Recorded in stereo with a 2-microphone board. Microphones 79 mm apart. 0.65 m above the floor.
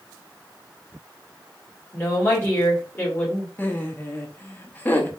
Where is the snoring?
No snoring in this recording.